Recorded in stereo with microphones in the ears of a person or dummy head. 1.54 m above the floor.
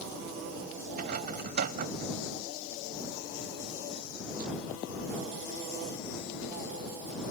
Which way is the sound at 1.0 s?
55° right (ahead or behind).